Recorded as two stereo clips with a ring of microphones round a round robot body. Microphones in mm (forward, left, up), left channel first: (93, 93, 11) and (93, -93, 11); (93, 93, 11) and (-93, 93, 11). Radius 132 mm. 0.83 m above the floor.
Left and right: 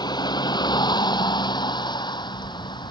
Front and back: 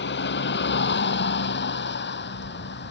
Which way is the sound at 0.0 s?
20° left.